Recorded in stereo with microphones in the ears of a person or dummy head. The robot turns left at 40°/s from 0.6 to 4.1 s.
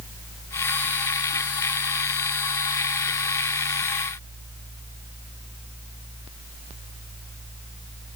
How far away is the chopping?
No chopping in this recording.